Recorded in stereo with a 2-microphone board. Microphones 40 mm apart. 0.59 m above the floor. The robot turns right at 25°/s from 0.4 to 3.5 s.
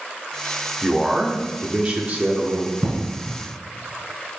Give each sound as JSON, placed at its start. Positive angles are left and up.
{"t": 0.8, "sound": "a man speaking", "azimuth_deg": -170, "distance_m": 1.0}
{"t": 2.8, "sound": "an explosion", "side_deg": -15, "distance_m": 2.5}